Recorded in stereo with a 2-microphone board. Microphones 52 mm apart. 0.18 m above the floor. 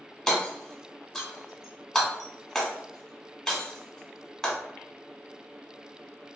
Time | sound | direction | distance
0.3 | hammering | 5° left (ahead or behind) | 1.2 m